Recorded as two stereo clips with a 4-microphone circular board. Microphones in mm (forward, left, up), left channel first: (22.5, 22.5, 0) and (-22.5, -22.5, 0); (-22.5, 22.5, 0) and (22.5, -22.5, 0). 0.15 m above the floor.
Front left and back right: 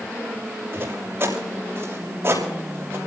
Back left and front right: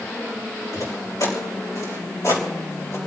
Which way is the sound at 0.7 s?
170° left.